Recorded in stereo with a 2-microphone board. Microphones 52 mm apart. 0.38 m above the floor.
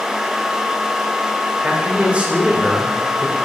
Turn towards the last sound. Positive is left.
turn(degrees=-25)  # may be behind; listen again after turning